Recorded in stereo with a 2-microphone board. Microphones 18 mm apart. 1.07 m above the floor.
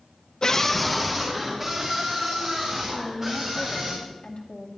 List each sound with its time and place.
0.4 s a scream: 40° left (ahead or behind), 0.5 m; by 3.9 s 30° right (ahead or behind), 4 m
2.9 s a woman speaking: 60° left (ahead or behind), 2 m